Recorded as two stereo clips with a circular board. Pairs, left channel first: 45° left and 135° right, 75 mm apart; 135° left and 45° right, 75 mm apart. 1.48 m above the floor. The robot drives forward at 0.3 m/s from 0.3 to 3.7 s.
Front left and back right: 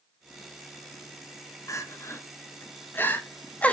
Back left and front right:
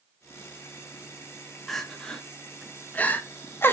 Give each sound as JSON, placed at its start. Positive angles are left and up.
{"t": 1.7, "sound": "crying", "azimuth_deg": 50, "distance_m": 1.1}